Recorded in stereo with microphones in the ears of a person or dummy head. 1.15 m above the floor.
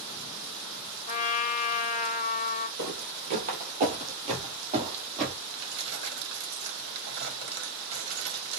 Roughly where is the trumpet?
Left.